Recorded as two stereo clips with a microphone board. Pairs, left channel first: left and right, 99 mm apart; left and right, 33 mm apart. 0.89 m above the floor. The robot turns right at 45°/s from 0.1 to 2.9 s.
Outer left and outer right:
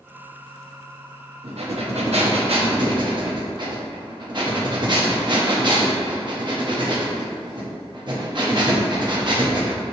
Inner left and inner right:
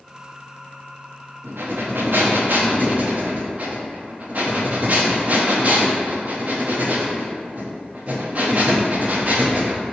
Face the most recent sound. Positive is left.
turn(degrees=-45)